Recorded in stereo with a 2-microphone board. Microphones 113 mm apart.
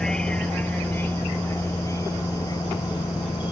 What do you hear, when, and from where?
0.0 s a vehicle: 5° left (ahead or behind); by 3.5 s 40° left (ahead or behind)